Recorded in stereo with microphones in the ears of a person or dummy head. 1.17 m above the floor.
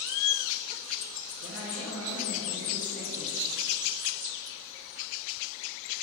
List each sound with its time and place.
1.4 s a man speaking: 45° right (ahead or behind), 2.5 m; by 3.4 s 60° right (ahead or behind), 3.5 m